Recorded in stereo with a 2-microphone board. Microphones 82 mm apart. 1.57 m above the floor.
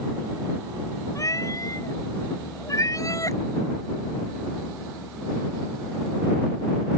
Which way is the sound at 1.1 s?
40° left (ahead or behind).